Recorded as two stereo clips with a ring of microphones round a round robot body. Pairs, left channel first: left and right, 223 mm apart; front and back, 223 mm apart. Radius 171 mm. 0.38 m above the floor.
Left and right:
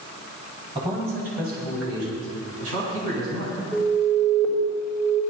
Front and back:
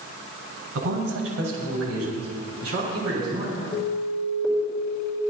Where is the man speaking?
160° right, 2.5 m; by 3.6 s 115° right, 5 m.